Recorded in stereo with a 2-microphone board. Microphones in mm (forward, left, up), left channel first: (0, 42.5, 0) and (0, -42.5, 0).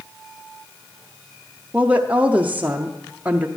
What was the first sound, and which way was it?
A woman speaking, 20° right (ahead or behind).